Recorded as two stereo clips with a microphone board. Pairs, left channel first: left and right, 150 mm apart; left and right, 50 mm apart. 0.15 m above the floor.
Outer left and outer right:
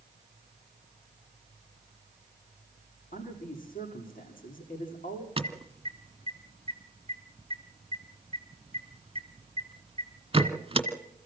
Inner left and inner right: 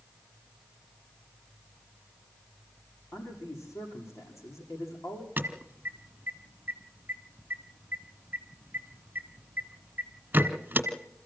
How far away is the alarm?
About 1.5 m.